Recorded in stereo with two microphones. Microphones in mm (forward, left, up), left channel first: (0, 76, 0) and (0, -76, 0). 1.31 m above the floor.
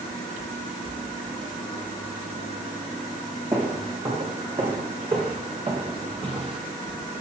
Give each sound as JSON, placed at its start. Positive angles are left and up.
{"t": 3.5, "sound": "footsteps", "side_deg": -30, "distance_m": 4.5}